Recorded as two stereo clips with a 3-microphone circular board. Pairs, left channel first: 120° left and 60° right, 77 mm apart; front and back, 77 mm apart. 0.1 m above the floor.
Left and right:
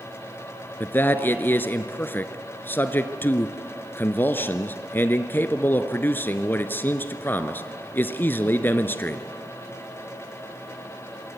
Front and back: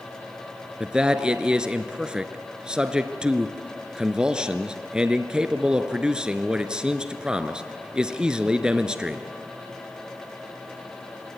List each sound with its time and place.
0.8 s a man speaking: 115° left, 1.3 m